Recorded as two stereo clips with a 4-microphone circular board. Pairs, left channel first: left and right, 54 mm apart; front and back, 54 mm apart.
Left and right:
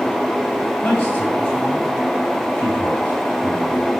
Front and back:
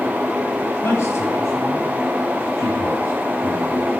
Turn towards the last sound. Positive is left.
turn(degrees=35)